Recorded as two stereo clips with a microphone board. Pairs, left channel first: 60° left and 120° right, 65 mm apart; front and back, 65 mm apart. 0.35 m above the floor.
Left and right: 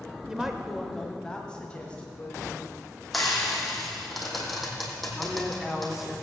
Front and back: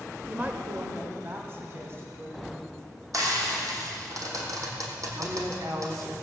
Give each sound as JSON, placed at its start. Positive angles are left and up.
{"t": 0.3, "sound": "a woman speaking", "azimuth_deg": -175, "distance_m": 0.8}
{"t": 3.1, "sound": "frying", "azimuth_deg": 150, "distance_m": 3.0}
{"t": 5.2, "sound": "a woman speaking", "azimuth_deg": 155, "distance_m": 2.0}